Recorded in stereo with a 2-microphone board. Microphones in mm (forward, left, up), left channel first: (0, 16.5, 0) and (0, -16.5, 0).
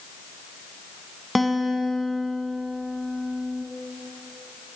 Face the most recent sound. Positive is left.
turn(degrees=0)  # may be behind; listen again after turning